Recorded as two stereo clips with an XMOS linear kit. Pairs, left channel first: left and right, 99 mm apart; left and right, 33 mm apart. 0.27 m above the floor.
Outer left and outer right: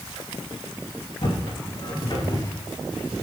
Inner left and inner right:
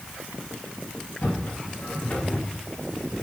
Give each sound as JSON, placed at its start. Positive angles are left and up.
{"t": 1.2, "sound": "footsteps", "side_deg": 60, "distance_m": 4.0}